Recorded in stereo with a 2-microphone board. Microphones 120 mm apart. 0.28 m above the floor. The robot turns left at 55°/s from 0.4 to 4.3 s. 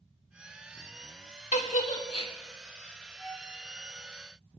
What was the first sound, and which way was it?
A giggle, 75° left (ahead or behind).